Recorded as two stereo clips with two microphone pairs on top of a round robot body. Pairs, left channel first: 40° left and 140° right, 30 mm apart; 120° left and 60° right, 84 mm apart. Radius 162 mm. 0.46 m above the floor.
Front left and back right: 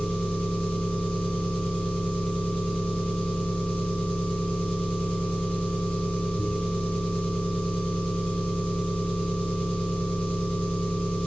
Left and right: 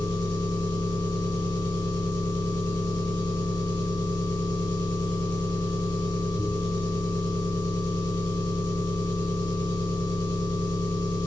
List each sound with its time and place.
0.0 s an engine running: 85° left, 3 m